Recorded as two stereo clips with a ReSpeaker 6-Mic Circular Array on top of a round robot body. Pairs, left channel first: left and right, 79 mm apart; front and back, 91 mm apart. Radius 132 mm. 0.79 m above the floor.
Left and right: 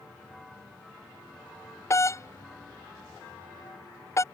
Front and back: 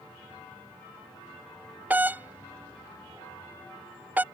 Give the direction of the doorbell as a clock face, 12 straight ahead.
8 o'clock.